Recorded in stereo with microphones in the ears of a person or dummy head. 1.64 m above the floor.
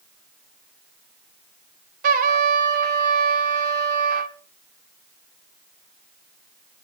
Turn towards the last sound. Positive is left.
turn(degrees=-50)  # may be behind; listen again after turning